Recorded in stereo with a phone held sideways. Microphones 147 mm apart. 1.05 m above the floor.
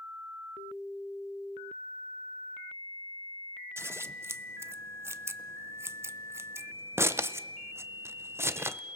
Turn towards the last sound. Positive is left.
turn(degrees=-15)  # may be behind; listen again after turning